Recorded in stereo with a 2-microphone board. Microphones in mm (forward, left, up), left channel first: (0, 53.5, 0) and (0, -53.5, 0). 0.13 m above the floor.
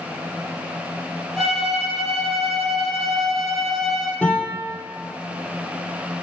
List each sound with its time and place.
1.4 s a violin: centre (ahead or behind), 4 m
4.2 s a guitar: 10° left (ahead or behind), 3.5 m